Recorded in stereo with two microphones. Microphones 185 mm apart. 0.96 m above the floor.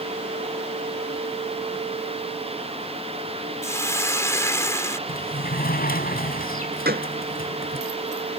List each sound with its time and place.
3.6 s a hiss: 15° left (ahead or behind)
5.1 s a sliding door: 55° left (ahead or behind)
6.8 s a gunshot: 60° right (ahead or behind)